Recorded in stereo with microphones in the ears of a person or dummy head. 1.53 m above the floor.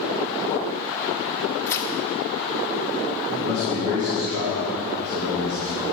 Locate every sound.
1.7 s tearing paper: 15° left (ahead or behind), 0.7 m
3.3 s a man speaking: 50° right (ahead or behind), 2.5 m